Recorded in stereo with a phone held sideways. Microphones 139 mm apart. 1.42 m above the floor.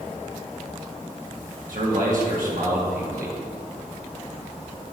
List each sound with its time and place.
1.7 s a man speaking: 75° right (ahead or behind), 1.9 m